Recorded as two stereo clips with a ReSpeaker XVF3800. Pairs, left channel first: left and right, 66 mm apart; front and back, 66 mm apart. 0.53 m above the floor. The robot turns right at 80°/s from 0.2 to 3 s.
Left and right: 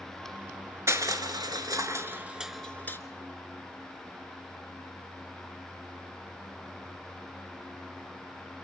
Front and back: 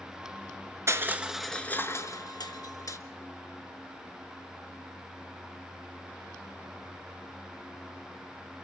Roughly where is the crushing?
Behind right.